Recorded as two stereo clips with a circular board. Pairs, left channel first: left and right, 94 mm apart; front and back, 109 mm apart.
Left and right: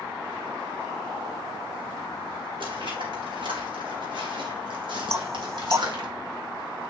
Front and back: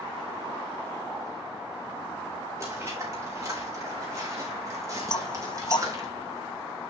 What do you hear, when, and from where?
2.6 s footsteps: 115° right, 5.5 m; by 6.1 s 125° right, 3.5 m
5.1 s knocking: 35° right, 0.6 m